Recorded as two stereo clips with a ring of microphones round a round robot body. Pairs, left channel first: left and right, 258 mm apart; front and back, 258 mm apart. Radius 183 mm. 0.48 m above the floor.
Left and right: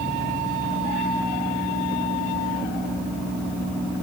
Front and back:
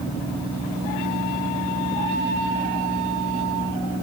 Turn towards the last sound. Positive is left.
No sound to turn to.